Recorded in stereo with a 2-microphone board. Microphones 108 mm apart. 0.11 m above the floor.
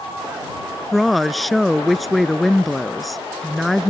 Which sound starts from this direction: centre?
A woman speaking, at 0.9 s.